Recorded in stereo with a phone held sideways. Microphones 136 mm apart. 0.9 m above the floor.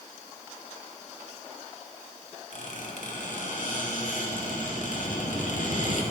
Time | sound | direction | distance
2.5 | a squeak | 65° left (ahead or behind) | 1.5 m